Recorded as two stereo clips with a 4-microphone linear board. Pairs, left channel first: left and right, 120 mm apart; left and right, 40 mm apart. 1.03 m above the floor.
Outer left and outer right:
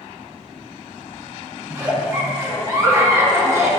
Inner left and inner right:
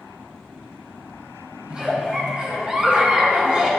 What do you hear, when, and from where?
1.7 s a giggle: 25° right (ahead or behind), 1.2 m